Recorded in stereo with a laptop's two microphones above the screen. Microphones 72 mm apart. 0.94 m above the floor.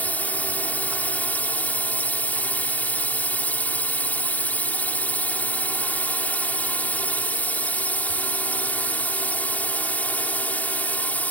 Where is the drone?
20° left (ahead or behind).